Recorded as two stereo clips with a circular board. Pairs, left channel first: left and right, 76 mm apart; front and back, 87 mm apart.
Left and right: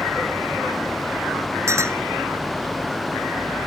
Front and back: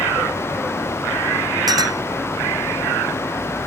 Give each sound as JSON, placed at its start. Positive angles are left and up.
{"t": 1.7, "sound": "a clink", "azimuth_deg": -140}